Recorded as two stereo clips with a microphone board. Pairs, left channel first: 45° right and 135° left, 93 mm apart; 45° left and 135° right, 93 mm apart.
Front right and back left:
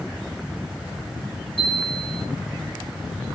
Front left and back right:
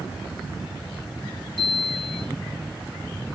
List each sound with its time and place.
1.6 s a chime: 45° right, 7.5 m